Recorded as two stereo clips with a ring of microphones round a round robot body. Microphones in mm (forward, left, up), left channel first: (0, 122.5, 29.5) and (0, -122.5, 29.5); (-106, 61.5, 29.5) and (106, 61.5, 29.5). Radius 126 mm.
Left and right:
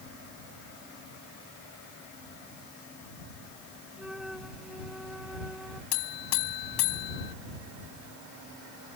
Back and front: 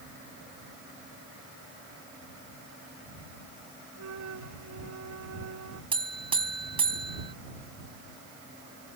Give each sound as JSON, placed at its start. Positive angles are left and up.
{"t": 4.0, "sound": "a flute", "azimuth_deg": 0}
{"t": 5.9, "sound": "a buzzer", "azimuth_deg": 65}